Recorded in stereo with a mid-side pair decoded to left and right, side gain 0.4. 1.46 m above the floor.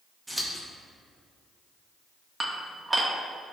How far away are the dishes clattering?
About 1.4 m.